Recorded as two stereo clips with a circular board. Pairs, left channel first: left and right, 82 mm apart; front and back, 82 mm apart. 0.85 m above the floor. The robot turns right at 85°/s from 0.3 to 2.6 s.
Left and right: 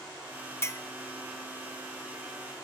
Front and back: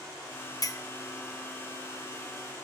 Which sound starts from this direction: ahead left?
A clink, at 0.6 s.